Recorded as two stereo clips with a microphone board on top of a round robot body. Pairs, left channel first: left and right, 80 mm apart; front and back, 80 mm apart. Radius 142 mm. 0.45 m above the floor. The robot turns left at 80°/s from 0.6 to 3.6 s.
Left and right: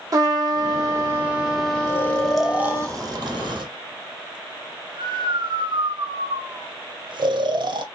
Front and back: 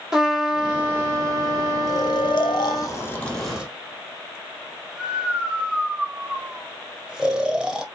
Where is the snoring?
35° left, 0.8 m; by 7.8 s 100° right, 0.8 m.